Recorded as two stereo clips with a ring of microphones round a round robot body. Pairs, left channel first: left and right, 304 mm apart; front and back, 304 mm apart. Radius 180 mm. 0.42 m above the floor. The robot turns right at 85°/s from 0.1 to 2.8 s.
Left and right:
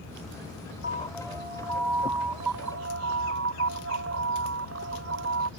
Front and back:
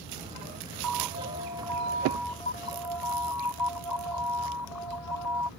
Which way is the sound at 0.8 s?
150° left.